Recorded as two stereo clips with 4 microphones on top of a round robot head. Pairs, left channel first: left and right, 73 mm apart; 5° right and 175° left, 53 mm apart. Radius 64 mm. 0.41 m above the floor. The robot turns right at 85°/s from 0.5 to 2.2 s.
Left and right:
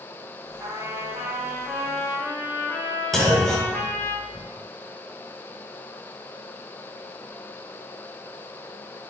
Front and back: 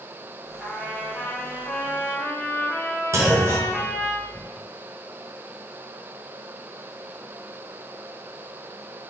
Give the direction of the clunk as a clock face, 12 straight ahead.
6 o'clock.